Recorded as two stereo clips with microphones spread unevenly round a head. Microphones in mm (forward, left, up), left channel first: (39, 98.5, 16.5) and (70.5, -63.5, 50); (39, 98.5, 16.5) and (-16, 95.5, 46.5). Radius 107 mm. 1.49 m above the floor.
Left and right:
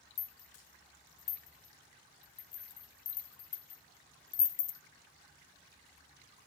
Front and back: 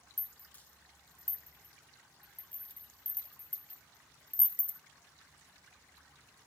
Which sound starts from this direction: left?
A rattle, at 0.2 s.